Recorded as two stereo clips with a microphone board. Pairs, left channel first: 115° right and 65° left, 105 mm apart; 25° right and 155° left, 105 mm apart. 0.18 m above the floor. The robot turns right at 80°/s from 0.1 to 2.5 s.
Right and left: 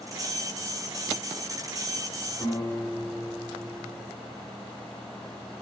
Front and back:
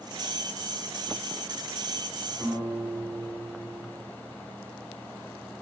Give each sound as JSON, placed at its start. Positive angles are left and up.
{"t": 2.4, "sound": "a guitar", "azimuth_deg": -145, "distance_m": 3.0}